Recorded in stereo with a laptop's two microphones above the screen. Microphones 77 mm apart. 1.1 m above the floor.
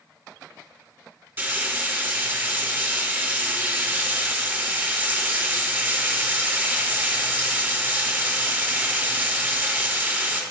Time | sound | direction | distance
1.4 | frying | 25° right (ahead or behind) | 3.5 m